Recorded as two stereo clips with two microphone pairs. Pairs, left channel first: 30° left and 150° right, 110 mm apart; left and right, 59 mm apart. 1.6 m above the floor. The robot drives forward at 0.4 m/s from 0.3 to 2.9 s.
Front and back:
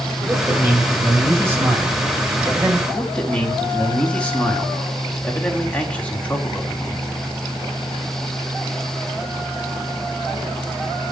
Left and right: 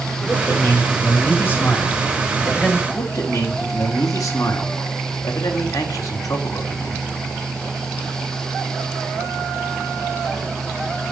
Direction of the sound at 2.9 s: 105° left.